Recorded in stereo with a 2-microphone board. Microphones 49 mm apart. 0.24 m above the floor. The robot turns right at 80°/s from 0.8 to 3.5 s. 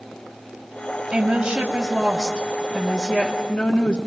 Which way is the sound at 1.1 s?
20° right (ahead or behind).